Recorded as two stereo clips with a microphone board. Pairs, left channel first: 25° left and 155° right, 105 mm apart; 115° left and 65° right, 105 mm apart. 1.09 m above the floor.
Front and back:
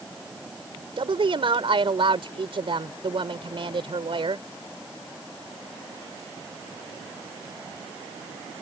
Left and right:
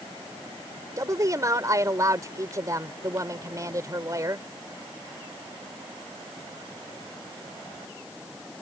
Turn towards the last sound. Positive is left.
turn(degrees=-125)